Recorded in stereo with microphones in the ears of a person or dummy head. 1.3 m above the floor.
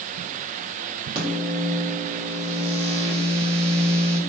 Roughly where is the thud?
I don't hear a thud.